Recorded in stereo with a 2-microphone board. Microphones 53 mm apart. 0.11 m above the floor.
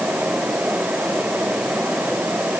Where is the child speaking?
No child speaking in this recording.